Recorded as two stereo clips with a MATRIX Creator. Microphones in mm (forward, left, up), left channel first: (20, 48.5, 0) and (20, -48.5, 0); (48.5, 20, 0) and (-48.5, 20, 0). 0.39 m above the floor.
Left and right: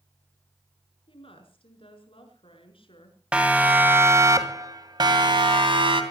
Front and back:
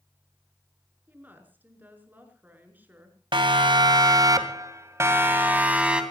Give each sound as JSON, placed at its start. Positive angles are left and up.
{"t": 1.1, "sound": "a woman speaking", "azimuth_deg": 110, "distance_m": 5.5}
{"t": 3.3, "sound": "a siren", "azimuth_deg": -165, "distance_m": 2.5}